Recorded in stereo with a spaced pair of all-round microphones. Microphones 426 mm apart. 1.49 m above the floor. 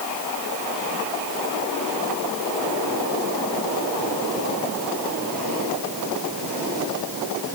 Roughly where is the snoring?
I don't hear snoring.